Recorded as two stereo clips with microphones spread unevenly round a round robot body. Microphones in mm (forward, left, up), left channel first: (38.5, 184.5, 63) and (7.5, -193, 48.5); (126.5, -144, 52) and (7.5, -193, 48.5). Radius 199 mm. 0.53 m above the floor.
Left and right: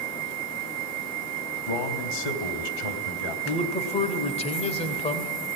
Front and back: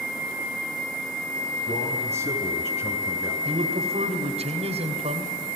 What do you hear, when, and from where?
1.7 s a man speaking: 75° left, 3.5 m
3.5 s a man speaking: 160° left, 2.5 m